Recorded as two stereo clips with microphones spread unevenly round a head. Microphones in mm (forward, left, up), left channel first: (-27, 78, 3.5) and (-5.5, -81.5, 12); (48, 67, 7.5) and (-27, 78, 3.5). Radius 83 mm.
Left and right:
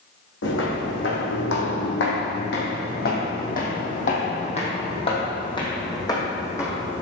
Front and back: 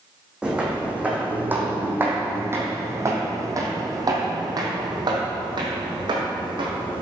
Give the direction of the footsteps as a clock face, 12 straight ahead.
9 o'clock.